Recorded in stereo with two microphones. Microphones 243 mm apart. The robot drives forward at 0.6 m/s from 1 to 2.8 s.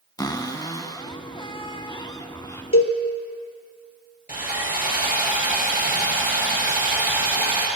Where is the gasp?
No gasp in this recording.